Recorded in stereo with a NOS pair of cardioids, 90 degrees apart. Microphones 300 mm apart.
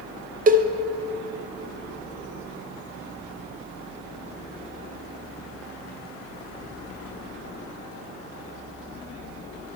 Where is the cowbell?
25° right, 0.6 m.